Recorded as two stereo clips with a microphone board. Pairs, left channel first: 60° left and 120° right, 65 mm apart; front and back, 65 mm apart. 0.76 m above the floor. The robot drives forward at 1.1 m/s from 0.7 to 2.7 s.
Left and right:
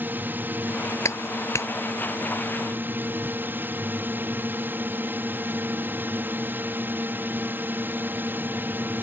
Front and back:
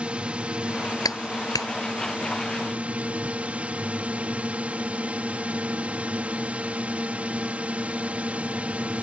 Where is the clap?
15° left; by 1.7 s 20° left.